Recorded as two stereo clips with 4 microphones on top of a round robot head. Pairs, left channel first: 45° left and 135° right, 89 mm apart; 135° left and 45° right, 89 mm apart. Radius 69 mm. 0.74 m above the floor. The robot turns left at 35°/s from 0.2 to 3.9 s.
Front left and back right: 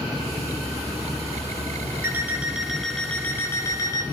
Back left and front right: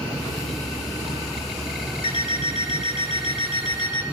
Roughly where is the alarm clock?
Behind.